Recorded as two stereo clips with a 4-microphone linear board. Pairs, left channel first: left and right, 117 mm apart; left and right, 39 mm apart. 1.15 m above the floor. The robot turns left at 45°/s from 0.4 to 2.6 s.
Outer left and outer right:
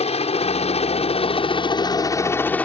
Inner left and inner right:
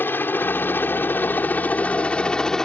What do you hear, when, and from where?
0.0 s a helicopter: 70° left (ahead or behind); by 2.7 s 15° left (ahead or behind)